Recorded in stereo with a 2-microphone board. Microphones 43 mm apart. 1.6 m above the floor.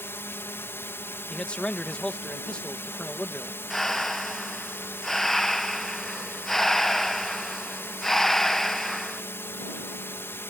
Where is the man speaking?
25° left (ahead or behind).